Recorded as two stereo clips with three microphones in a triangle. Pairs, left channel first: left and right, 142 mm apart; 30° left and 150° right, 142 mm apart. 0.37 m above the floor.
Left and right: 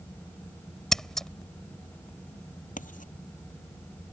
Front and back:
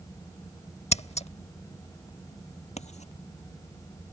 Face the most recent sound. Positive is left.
turn(degrees=65)